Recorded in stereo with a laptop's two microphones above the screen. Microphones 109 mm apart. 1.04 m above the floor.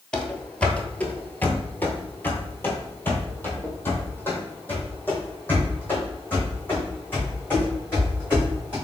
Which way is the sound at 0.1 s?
5° left (ahead or behind).